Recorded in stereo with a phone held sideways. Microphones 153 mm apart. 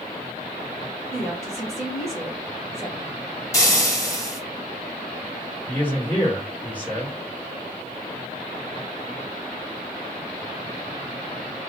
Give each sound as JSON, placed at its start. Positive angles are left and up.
{"t": 1.1, "sound": "a woman speaking", "side_deg": -5, "distance_m": 2.0}
{"t": 3.5, "sound": "frying", "side_deg": 20, "distance_m": 1.8}
{"t": 5.7, "sound": "a man speaking", "side_deg": 10, "distance_m": 2.5}